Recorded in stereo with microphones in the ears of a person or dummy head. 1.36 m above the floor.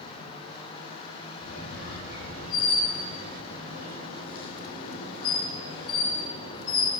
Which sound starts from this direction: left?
A squeak, at 1.4 s.